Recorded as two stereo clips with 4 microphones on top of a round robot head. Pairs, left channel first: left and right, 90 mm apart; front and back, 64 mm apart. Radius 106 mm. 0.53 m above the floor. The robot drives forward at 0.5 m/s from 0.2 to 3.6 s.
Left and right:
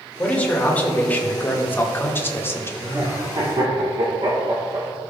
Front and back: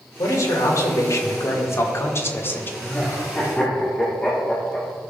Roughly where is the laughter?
Ahead right.